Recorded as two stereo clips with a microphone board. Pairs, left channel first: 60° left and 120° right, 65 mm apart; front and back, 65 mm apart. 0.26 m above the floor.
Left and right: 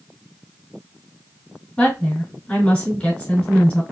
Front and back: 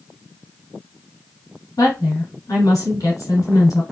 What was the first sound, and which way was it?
A woman speaking, 10° right.